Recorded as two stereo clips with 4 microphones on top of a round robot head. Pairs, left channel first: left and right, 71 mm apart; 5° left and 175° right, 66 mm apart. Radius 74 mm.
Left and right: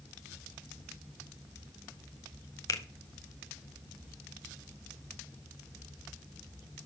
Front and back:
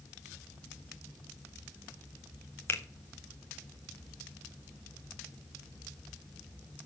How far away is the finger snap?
About 1.1 m.